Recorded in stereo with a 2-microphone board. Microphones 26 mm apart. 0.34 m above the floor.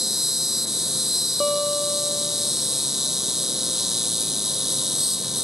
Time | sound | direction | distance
0.0 | an insect | 10° right (ahead or behind) | ?
1.4 | a guitar | 5° left (ahead or behind) | ?